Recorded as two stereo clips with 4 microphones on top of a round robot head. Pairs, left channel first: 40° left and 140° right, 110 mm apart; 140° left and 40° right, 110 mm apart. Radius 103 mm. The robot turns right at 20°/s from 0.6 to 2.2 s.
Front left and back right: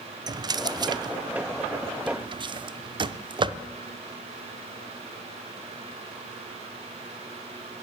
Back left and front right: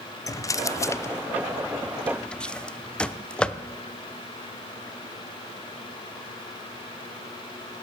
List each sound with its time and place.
0.3 s a drawer: 170° right, 0.5 m; by 3.6 s 140° right, 0.5 m